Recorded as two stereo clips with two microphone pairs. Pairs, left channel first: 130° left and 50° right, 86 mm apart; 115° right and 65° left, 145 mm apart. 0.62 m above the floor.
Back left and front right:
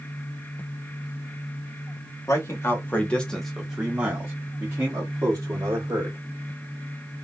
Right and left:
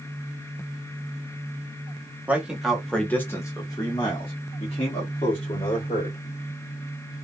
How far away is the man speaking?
About 1.0 m.